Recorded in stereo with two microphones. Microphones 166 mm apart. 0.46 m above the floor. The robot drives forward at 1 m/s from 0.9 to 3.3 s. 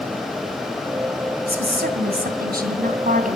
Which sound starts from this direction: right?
A woman speaking, at 1.5 s.